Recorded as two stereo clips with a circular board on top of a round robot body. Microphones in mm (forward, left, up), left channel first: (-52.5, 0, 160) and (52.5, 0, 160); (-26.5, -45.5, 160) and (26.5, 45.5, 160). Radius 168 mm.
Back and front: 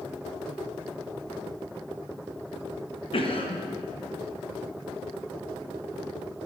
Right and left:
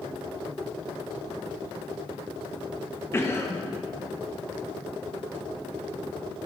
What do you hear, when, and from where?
3.1 s a cough: straight behind, 1.0 m